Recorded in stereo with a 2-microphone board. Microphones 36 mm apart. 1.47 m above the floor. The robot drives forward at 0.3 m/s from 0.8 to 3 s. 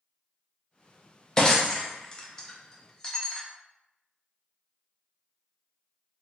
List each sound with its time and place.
1.4 s breaking glass: 20° left (ahead or behind), 0.5 m; by 3.4 s 15° left (ahead or behind), 0.6 m